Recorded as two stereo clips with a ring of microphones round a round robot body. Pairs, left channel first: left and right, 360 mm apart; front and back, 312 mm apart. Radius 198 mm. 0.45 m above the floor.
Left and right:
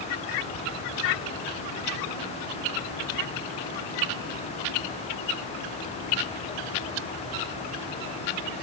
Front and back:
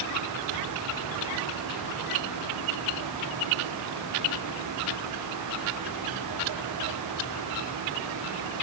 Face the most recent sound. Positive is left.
No sound to turn to.